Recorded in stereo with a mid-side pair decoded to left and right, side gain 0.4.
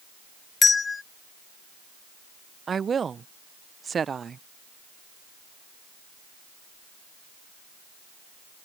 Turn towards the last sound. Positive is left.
turn(degrees=-45)